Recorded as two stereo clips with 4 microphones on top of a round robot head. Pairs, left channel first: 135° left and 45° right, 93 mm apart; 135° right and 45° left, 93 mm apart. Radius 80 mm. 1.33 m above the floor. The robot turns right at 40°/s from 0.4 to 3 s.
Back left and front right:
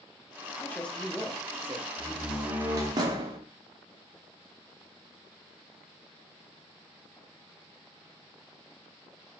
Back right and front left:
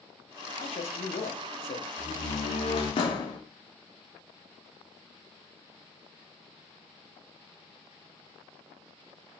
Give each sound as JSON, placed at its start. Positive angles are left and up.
{"t": 0.6, "sound": "a man speaking", "azimuth_deg": -155, "distance_m": 0.8}
{"t": 2.0, "sound": "a door slam", "azimuth_deg": -140, "distance_m": 1.0}